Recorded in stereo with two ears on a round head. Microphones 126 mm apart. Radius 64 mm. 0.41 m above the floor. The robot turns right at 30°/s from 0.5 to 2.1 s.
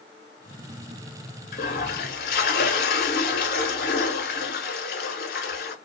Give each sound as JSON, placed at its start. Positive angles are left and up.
{"t": 1.5, "sound": "a toilet flushing", "side_deg": 60, "distance_m": 0.9}